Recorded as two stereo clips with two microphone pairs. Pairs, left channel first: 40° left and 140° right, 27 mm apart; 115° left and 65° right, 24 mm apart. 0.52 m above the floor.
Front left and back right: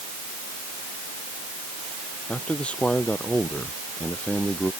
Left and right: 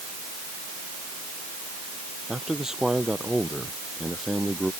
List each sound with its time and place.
2.3 s a man speaking: straight ahead; by 4.7 s 5° left